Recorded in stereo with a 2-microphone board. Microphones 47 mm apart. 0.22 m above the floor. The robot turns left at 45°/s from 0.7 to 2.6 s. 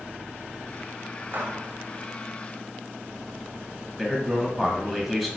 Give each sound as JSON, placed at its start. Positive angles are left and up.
{"t": 1.3, "sound": "a gunshot", "side_deg": -45, "distance_m": 0.6}
{"t": 4.0, "sound": "a man speaking", "side_deg": 5, "distance_m": 1.0}